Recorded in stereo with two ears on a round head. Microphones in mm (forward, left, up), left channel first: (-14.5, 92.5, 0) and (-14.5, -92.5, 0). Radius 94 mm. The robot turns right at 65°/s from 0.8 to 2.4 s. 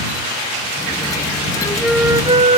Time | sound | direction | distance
1.6 | a flute | 160° left | ?